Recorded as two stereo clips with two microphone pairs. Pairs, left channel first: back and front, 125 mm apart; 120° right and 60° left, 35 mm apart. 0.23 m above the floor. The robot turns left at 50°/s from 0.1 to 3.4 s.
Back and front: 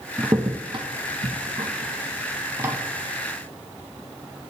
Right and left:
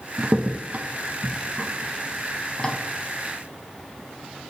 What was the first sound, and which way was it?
A crack, 60° left.